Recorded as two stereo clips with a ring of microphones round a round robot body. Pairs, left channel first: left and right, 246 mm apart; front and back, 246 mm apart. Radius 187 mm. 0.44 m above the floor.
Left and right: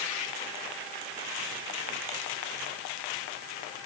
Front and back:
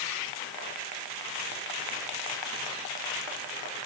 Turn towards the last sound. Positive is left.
No sound to turn to.